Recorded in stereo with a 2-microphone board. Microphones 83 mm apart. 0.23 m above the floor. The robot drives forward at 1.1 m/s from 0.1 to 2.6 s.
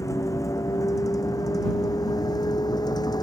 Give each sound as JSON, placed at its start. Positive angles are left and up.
{"t": 0.0, "sound": "a vehicle", "side_deg": 40}